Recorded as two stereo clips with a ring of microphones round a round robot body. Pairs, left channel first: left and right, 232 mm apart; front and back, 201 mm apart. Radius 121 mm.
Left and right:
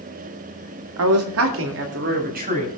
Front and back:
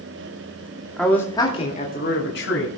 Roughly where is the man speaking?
Right.